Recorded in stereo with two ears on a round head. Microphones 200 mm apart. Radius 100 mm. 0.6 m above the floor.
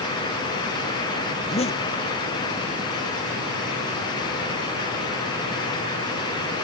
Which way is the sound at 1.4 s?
30° left (ahead or behind).